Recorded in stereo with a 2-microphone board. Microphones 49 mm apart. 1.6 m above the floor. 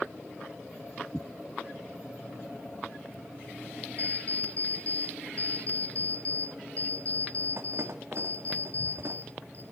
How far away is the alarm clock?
About 1.8 m.